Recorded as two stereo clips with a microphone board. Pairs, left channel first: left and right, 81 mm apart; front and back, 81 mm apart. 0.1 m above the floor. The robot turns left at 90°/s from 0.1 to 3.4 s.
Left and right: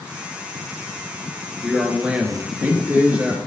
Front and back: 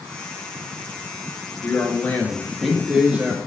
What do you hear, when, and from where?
1.6 s a man speaking: 10° left, 1.3 m; by 3.4 s 150° right, 1.3 m